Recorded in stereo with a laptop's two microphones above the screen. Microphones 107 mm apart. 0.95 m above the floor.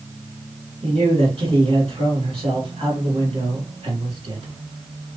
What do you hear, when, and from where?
0.8 s a man speaking: 60° right (ahead or behind), 1.7 m